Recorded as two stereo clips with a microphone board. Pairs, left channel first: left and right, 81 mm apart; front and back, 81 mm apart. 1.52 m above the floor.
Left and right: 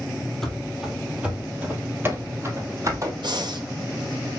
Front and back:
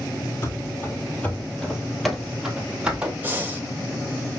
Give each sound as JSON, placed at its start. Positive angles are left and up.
{"t": 0.4, "sound": "running footsteps", "azimuth_deg": 10, "distance_m": 1.8}
{"t": 3.2, "sound": "breathing", "azimuth_deg": -115, "distance_m": 1.3}